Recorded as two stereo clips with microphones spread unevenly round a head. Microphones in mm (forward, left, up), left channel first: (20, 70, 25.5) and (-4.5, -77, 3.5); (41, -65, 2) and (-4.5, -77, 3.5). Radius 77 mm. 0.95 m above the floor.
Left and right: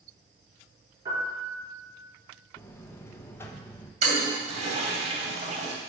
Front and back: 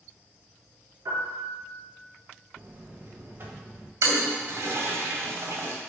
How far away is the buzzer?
About 0.9 m.